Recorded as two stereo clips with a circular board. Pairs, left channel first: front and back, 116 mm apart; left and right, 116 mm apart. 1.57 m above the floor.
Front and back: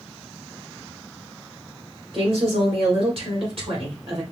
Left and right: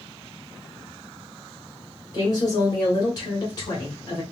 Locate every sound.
2.1 s a woman speaking: 145° left, 2 m